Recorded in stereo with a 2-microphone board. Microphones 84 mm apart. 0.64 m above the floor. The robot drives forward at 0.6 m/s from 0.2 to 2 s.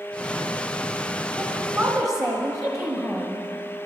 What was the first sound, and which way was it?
A woman speaking, 30° right (ahead or behind).